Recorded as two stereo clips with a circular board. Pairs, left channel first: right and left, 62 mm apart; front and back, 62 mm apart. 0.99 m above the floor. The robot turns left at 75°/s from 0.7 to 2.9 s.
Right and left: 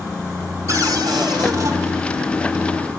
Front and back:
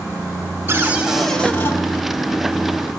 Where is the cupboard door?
130° left, 1.5 m; by 1.8 s 50° left, 1.5 m.